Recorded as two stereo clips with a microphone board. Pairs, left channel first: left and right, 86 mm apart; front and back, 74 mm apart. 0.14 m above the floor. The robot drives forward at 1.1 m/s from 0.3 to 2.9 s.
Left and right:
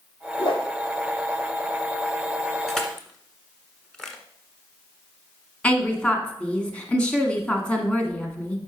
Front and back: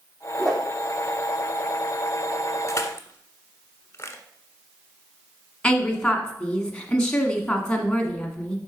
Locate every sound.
0.4 s a whoosh: 85° left, 2.5 m; by 0.6 s 90° left, 2.5 m
2.7 s crushing: 5° left, 1.4 m; by 4.2 s 10° left, 1.2 m
5.6 s a woman speaking: 45° left, 1.4 m